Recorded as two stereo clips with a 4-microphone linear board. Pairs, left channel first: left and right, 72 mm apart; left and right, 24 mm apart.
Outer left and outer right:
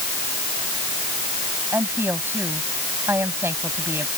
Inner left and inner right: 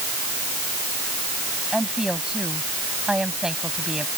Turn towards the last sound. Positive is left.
turn(degrees=-35)  # may be behind; listen again after turning